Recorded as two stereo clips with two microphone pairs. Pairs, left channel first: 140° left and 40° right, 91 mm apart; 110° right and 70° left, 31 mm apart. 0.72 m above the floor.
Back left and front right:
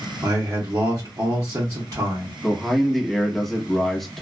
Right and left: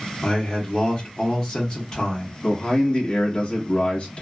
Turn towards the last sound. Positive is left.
turn(degrees=-135)